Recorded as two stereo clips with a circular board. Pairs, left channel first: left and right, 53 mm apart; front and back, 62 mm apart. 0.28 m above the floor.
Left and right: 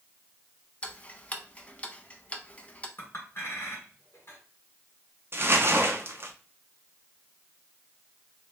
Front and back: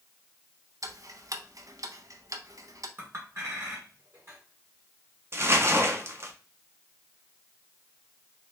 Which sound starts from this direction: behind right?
Crumpling, at 5.3 s.